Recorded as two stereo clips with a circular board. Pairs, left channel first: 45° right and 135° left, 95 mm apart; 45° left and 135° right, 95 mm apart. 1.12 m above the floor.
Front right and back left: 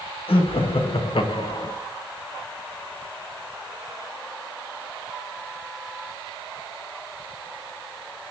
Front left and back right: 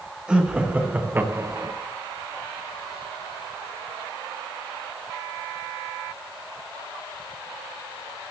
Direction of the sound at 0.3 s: 55° right.